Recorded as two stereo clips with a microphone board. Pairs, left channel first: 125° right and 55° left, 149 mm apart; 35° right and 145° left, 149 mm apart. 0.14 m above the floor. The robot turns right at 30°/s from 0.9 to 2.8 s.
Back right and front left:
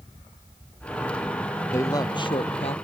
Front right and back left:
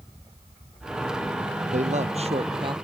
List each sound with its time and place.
1.7 s a man speaking: 165° left; by 2.8 s 160° right